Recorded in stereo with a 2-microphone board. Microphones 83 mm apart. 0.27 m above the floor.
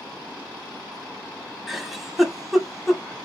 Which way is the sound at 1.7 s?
Centre (ahead or behind).